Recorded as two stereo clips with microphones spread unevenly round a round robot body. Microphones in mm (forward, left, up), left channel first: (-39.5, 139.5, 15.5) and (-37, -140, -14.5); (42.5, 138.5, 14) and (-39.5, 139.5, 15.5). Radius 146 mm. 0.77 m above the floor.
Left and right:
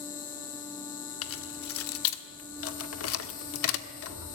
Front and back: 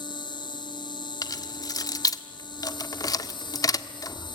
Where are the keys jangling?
45° left, 1.4 m.